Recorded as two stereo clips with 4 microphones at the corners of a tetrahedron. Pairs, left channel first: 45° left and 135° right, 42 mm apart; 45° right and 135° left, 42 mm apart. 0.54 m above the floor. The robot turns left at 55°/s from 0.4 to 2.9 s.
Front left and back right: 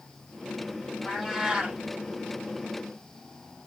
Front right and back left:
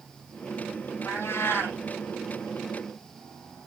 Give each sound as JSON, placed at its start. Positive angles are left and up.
{"t": 1.1, "sound": "a cat meowing", "azimuth_deg": -35, "distance_m": 5.5}